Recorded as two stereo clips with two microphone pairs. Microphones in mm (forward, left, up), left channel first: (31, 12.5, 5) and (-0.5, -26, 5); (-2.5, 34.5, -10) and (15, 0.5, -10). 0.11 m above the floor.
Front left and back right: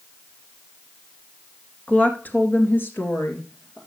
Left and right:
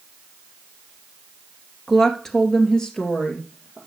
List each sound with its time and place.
1.9 s a woman speaking: 35° left, 1.8 m; by 3.8 s 50° left, 3 m